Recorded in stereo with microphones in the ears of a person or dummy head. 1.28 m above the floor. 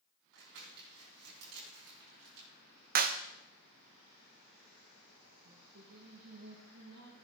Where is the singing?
75° right (ahead or behind), 5.5 m.